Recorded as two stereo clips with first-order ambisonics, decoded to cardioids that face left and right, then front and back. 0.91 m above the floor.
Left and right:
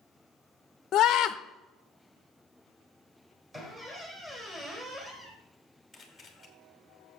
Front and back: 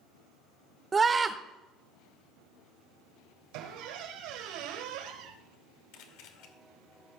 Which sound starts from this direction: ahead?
A camera shutter, at 5.9 s.